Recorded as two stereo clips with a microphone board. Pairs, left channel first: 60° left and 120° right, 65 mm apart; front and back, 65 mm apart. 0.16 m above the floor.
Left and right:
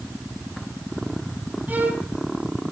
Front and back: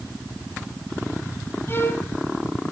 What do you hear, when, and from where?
1.7 s a violin: 55° right, 1.3 m